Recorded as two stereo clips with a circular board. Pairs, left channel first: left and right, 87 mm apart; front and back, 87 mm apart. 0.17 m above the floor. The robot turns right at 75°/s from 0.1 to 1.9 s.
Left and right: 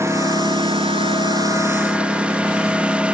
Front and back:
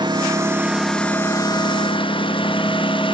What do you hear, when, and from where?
0.0 s a lawn mower: 150° right; by 3.1 s 15° right